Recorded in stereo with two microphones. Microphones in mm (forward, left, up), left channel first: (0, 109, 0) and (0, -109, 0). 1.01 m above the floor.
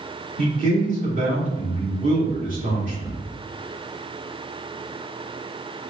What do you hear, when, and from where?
0.4 s a man speaking: 35° right (ahead or behind), 2 m